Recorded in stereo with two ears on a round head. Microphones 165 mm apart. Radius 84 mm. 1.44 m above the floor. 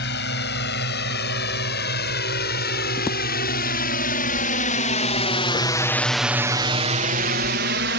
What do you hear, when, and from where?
0.0 s a drone: 65° left (ahead or behind); by 8.0 s 65° right (ahead or behind)